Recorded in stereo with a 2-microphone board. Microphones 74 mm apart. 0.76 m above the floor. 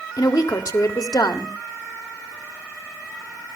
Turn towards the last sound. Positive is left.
turn(degrees=65)  # may be behind; listen again after turning